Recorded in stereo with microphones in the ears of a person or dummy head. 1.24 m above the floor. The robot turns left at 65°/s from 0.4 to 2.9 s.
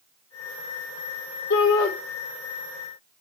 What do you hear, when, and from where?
1.5 s a shout: 65° left (ahead or behind), 3 m; by 1.9 s 90° left, 3 m